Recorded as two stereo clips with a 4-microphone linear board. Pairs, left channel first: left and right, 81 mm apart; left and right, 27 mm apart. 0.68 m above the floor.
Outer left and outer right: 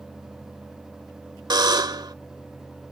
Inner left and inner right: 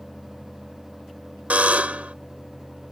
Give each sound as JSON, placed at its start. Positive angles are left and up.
{"t": 1.5, "sound": "a buzzer", "side_deg": -70}